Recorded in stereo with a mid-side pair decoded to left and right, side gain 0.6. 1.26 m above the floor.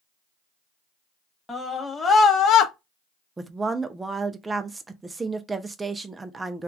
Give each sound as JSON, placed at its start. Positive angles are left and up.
{"t": 1.5, "sound": "a scream", "azimuth_deg": 10, "distance_m": 1.5}
{"t": 3.4, "sound": "a woman speaking", "azimuth_deg": -15, "distance_m": 0.6}